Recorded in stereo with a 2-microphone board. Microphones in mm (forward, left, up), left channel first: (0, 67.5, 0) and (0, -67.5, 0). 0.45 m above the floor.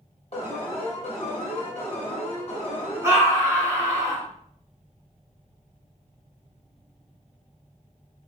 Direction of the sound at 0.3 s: 45° left (ahead or behind).